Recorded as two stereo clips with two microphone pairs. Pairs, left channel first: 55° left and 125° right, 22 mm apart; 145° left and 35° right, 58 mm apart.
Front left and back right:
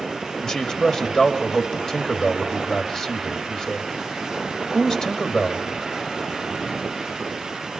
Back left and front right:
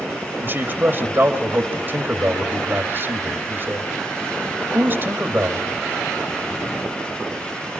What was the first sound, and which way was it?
A man speaking, straight ahead.